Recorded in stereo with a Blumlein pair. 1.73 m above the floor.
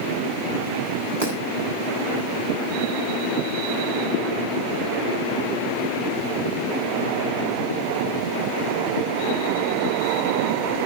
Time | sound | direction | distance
1.2 | breaking glass | 65° right | 10 m